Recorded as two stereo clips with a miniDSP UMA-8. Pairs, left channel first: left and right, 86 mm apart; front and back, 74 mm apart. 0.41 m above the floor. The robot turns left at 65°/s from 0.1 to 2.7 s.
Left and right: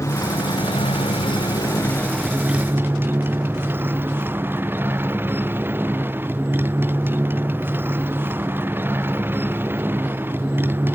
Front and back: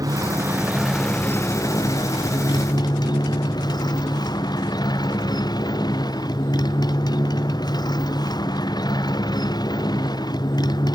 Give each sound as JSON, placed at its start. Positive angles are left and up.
{"t": 0.0, "sound": "a motorcycle", "azimuth_deg": 145}